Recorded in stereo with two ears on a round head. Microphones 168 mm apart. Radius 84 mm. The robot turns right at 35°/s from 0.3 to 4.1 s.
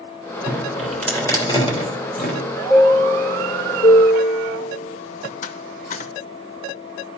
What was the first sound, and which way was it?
Dripping, 15° right (ahead or behind).